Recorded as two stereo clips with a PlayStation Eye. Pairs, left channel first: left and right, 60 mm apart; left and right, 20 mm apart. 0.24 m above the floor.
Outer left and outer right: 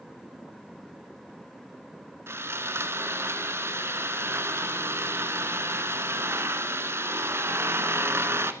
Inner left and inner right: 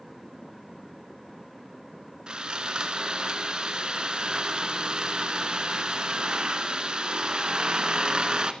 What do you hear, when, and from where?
2.3 s sawing: 45° right (ahead or behind), 1.1 m